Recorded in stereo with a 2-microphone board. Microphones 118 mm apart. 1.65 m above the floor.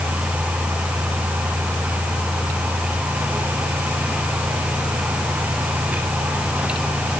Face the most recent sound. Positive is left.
No sound to turn to.